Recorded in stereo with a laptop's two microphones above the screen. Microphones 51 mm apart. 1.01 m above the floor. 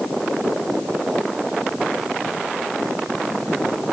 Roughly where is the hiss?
No hiss in this recording.